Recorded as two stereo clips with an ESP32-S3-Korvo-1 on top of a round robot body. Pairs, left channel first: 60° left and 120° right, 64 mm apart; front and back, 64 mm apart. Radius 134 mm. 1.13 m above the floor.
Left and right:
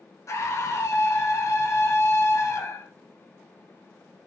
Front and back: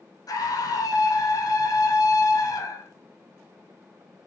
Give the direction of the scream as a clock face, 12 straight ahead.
11 o'clock.